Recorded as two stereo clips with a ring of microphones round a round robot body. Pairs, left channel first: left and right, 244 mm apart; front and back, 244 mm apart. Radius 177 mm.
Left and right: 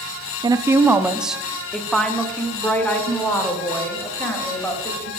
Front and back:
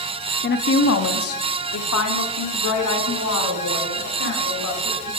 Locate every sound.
0.4 s a woman speaking: 20° right, 0.7 m; by 5.1 s 10° left, 3.5 m